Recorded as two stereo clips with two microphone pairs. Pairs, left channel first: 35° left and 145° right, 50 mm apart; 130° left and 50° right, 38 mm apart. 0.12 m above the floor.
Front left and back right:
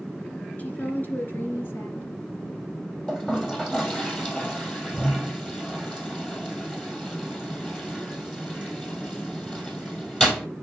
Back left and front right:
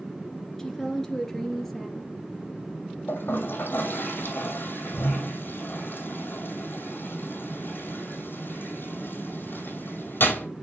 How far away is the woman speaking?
About 1.8 m.